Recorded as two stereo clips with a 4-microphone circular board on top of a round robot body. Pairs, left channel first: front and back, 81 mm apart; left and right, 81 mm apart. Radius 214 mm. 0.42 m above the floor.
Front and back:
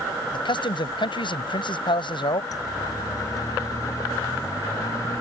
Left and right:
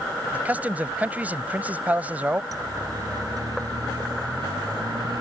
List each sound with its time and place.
0.3 s a man speaking: 20° right
2.5 s a siren: 45° right; by 5.2 s 50° right